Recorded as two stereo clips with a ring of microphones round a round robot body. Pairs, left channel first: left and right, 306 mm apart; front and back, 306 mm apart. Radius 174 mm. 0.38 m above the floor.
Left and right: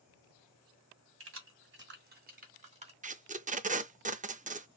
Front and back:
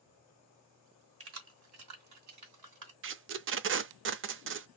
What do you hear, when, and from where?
1.2 s keys jangling: 135° right, 2 m; by 2.9 s 160° right, 2.5 m
3.0 s tape being pulled: 150° right, 0.5 m